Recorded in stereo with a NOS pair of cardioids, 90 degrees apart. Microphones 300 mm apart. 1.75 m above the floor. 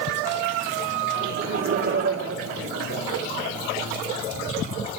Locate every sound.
1.2 s laughter: 50° right, 4.5 m; by 3.2 s 60° right, 5 m